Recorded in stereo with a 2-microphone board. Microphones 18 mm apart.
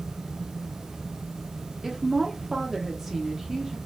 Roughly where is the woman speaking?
Centre.